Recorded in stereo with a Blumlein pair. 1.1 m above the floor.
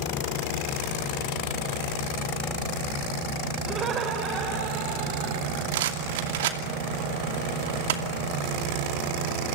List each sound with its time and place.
3.7 s laughter: 25° right, 4.5 m; by 5.6 s 50° right, 6.5 m
5.7 s a rattle: 55° right, 2.5 m